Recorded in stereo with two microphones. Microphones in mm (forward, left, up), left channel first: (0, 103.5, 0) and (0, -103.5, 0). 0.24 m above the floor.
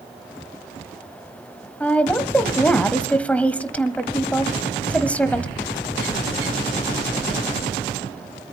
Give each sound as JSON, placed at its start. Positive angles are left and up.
{"t": 1.8, "sound": "a woman speaking", "side_deg": 5, "distance_m": 1.2}